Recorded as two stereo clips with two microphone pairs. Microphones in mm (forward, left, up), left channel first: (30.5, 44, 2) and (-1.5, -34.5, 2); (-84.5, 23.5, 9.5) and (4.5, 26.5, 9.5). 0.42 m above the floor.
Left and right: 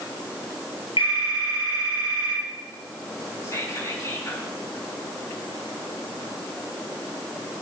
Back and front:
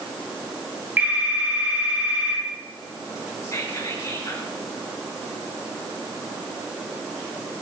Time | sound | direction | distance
1.0 | a phone ringing | 70° left | 5 m
3.4 | whispering | 125° left | 4 m